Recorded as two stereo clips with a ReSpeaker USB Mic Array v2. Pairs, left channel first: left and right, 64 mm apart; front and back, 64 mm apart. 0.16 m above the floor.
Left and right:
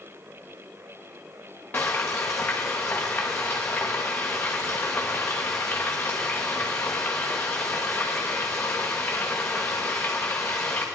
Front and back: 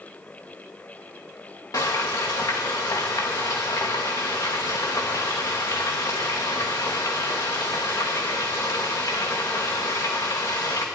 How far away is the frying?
About 2.5 m.